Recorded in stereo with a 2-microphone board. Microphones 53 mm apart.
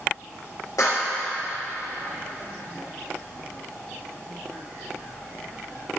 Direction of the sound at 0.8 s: 80° left.